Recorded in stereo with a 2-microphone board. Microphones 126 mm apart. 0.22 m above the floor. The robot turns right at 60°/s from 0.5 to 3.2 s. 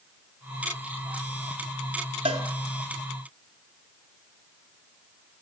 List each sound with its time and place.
2.2 s a cowbell: 50° right (ahead or behind), 0.9 m; by 2.4 s 60° right (ahead or behind), 0.9 m